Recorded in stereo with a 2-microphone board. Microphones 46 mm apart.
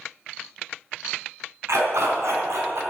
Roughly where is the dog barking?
Right.